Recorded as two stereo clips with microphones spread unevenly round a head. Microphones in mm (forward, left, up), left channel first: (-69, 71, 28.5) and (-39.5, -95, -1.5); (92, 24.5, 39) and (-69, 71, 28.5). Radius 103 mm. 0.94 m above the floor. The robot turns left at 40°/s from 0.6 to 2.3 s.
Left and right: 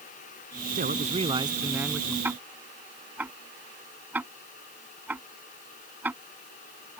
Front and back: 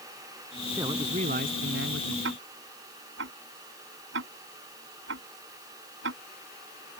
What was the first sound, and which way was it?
A man speaking, 120° right.